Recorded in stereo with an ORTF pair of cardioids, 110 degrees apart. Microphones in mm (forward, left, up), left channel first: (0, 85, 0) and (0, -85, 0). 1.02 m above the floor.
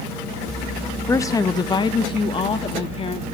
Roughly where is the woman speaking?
Ahead.